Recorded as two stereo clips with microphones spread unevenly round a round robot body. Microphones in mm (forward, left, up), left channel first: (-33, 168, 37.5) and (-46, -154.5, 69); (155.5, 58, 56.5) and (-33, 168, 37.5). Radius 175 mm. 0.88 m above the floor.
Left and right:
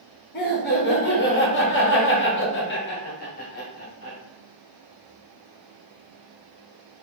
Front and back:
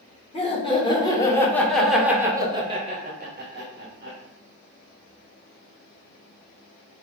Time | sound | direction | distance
0.3 | laughter | 35° left | 1.5 m